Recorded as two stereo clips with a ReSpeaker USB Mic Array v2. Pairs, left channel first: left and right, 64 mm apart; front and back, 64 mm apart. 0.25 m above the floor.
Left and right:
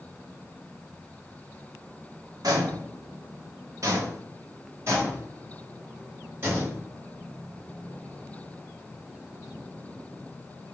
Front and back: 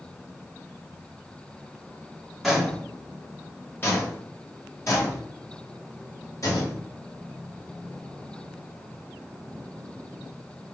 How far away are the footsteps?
About 0.9 m.